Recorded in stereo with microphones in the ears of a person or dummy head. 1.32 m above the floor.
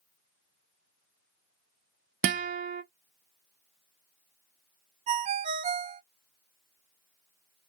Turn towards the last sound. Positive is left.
turn(degrees=-45)  # may be behind; listen again after turning